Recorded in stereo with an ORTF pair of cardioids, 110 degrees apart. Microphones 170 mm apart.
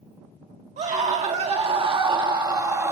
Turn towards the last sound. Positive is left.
turn(degrees=-15)